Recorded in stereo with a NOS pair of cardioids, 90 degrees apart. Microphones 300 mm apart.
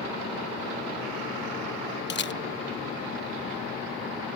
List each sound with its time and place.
2.1 s a camera shutter: 40° left